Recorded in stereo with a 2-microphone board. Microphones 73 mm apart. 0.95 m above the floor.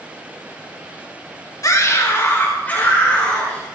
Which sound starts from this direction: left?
A scream, at 1.6 s.